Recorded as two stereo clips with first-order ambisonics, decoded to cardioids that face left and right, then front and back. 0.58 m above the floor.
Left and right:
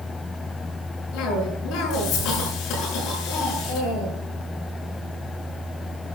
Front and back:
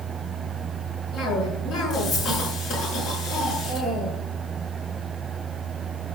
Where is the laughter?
No laughter in this recording.